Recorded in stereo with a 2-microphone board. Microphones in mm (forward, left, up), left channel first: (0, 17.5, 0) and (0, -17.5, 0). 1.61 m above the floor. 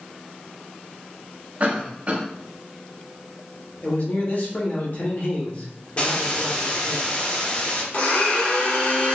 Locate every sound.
1.6 s a cough: 45° right (ahead or behind), 0.8 m
3.8 s a man speaking: 55° left (ahead or behind), 0.9 m
6.0 s a hiss: 35° left (ahead or behind), 0.8 m
7.9 s a blender: 45° left (ahead or behind), 1.0 m